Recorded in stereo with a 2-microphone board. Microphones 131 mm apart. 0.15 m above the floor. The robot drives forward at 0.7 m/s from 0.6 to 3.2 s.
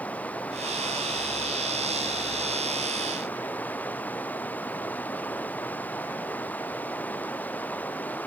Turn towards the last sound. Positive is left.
turn(degrees=15)  # may be behind; listen again after turning